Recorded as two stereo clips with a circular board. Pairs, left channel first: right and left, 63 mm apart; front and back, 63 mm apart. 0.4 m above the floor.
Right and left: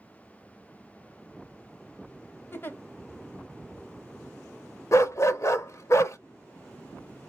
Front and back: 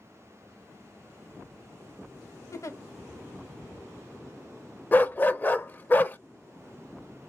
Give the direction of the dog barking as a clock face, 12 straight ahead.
2 o'clock.